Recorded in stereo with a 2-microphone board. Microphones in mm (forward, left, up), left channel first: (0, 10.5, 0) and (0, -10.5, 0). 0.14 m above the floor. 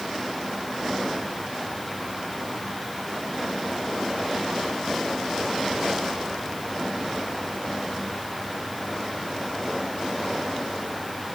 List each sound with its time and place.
Only background noise.